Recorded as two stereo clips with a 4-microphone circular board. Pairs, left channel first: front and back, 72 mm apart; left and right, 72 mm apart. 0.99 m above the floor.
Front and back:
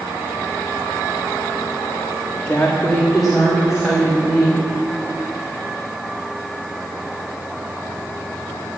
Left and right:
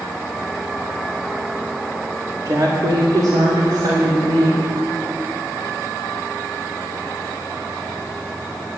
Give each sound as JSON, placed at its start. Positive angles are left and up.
{"t": 2.5, "sound": "a woman speaking", "azimuth_deg": -65, "distance_m": 1.7}